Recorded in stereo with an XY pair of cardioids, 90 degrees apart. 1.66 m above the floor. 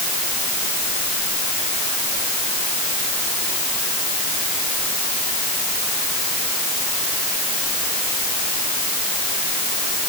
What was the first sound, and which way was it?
Only background noise.